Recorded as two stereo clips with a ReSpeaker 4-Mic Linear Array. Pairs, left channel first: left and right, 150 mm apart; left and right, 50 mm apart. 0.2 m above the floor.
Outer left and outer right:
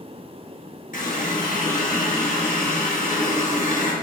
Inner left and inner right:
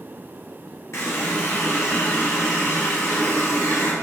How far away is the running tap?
About 2.5 m.